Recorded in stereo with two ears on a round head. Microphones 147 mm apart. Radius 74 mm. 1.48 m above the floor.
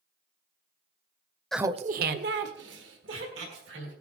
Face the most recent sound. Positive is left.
turn(degrees=-85)